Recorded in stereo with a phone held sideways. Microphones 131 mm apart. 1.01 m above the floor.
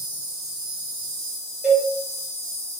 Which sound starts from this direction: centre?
A cowbell, at 1.6 s.